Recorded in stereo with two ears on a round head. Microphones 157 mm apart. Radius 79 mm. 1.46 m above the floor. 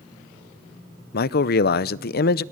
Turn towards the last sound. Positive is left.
turn(degrees=55)  # may be behind; listen again after turning